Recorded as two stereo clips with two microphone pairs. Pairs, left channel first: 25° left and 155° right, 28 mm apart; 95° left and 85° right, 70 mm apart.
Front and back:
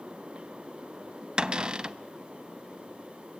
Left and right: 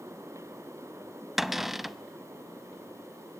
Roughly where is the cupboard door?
Behind.